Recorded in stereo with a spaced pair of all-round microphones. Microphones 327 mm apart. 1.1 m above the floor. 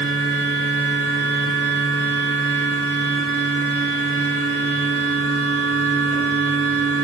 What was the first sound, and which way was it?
A machine running, 35° left (ahead or behind).